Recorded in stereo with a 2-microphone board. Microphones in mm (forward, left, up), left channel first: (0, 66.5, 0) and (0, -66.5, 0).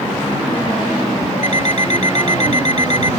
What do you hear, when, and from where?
1.4 s an alarm clock: 60° left (ahead or behind)